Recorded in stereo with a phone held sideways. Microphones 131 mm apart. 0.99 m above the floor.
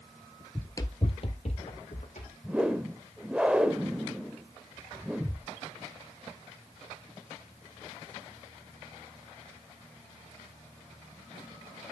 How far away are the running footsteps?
About 1.0 m.